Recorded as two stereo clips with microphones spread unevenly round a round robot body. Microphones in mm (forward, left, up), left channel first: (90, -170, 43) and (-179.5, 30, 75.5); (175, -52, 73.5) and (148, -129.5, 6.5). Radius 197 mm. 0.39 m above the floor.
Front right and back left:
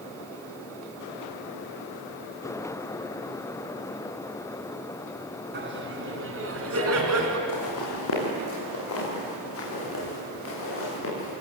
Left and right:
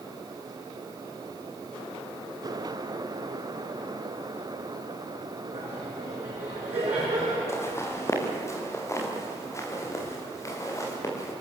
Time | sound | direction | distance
5.5 | laughter | 160° right | 4.5 m
7.5 | footsteps | 15° left | 6 m